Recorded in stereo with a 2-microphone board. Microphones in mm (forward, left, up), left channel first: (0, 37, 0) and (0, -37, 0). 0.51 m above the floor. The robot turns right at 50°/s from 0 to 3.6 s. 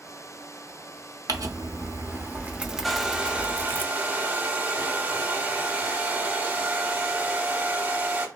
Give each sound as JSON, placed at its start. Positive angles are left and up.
{"t": 1.3, "sound": "crumpling", "azimuth_deg": -85, "distance_m": 0.8}
{"t": 2.8, "sound": "a hair dryer", "azimuth_deg": 180, "distance_m": 0.9}